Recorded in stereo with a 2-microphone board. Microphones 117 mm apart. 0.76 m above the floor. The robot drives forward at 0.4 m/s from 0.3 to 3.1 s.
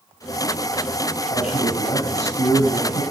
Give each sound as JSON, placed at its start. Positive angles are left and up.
{"t": 1.3, "sound": "a man speaking", "side_deg": 60, "distance_m": 6.0}